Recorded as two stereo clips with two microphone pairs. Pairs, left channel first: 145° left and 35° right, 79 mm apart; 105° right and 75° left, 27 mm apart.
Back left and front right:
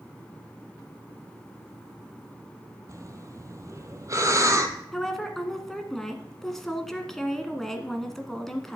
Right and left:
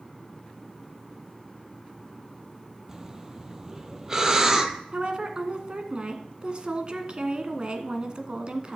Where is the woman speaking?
60° left, 1.2 m.